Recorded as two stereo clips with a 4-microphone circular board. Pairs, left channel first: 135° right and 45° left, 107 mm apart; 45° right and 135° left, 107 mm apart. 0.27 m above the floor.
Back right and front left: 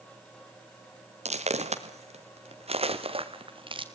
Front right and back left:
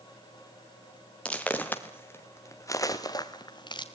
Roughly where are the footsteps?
Ahead left.